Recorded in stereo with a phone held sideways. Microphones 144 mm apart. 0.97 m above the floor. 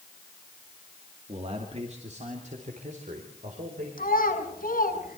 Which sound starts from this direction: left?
A child speaking, at 4.0 s.